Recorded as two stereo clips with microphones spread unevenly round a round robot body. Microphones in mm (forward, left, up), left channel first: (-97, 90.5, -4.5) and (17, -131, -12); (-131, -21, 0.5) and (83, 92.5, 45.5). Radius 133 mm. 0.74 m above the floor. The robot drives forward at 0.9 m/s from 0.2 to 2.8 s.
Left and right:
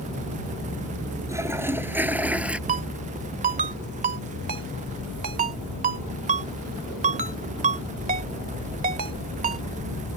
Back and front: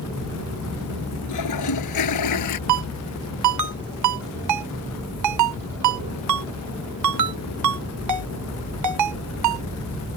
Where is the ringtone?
Straight ahead.